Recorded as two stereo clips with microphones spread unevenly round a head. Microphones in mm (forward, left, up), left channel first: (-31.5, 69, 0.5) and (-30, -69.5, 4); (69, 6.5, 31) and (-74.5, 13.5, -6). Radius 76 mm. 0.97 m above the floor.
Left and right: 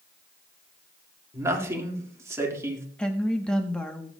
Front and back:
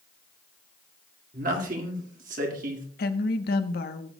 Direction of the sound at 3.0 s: 10° left.